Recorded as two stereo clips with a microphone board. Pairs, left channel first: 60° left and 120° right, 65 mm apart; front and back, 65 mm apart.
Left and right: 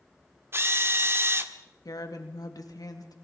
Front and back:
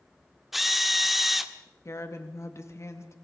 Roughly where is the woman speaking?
Ahead left.